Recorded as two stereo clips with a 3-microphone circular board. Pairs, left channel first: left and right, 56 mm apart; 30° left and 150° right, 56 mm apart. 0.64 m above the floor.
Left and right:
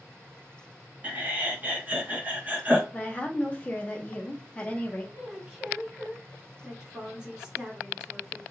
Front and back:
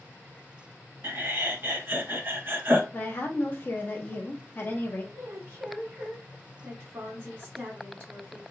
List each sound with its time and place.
1.0 s laughter: 135° right, 0.6 m
2.9 s a woman speaking: 40° left, 0.8 m
5.1 s a woman speaking: 160° right, 1.0 m